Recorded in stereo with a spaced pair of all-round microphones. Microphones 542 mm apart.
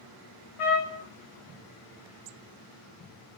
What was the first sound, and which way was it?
A trumpet, 70° left (ahead or behind).